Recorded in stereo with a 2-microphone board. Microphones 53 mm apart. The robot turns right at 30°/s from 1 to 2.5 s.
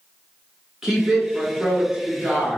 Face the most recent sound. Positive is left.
turn(degrees=-30)  # may be behind; listen again after turning